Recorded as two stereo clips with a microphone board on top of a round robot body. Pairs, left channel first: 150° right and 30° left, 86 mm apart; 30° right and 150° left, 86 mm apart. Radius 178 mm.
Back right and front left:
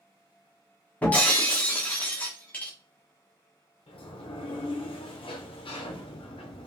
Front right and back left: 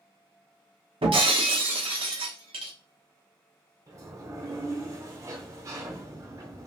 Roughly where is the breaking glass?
Behind left.